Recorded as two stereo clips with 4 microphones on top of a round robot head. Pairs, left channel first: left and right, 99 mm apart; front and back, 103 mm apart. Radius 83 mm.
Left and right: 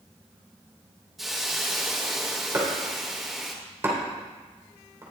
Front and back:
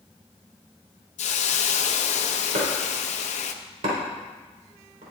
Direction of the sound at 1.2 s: Straight ahead.